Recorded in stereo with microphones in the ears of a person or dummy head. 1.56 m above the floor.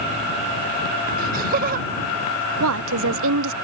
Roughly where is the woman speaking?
Right.